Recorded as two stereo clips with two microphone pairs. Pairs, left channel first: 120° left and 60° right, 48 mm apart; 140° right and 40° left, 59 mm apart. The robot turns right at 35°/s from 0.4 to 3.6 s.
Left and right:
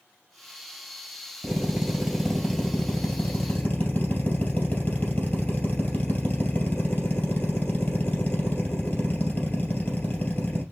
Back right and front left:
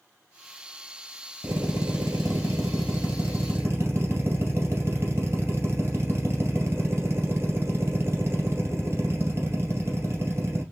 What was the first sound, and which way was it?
A drill, 5° left.